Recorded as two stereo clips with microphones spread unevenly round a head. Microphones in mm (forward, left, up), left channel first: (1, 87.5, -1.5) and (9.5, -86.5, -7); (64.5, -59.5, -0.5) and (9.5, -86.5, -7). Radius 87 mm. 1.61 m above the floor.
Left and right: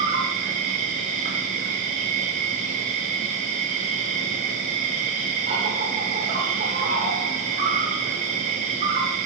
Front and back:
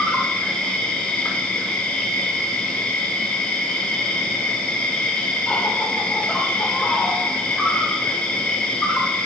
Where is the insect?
40° right, 6 m.